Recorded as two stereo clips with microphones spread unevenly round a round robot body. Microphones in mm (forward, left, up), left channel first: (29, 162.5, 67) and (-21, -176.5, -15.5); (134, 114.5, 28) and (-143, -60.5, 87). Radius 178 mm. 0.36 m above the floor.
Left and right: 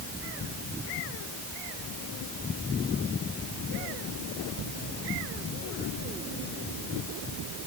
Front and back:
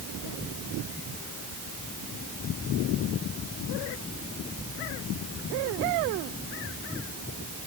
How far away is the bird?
No bird in this recording.